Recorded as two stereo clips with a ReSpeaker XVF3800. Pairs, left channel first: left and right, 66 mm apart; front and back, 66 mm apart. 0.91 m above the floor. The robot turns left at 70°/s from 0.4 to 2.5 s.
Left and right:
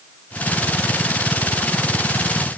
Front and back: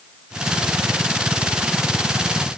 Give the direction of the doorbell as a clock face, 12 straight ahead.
I don't hear a doorbell.